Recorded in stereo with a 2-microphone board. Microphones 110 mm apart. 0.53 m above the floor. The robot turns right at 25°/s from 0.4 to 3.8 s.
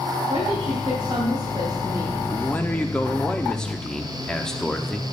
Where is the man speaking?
15° left (ahead or behind), 0.6 m; by 5.1 s 5° left (ahead or behind), 0.6 m.